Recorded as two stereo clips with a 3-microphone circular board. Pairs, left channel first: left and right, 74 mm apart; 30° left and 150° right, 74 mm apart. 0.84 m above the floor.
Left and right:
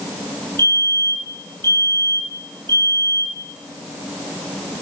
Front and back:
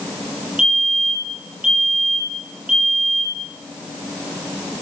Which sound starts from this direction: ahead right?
A fire alarm, at 0.6 s.